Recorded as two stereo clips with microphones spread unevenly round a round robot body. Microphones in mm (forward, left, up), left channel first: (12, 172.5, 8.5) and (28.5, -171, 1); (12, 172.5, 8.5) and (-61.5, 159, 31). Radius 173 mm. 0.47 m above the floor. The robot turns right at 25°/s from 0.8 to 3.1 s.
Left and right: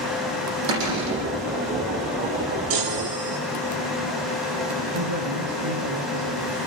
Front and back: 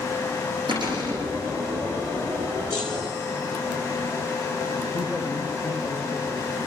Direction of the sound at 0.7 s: 105° right.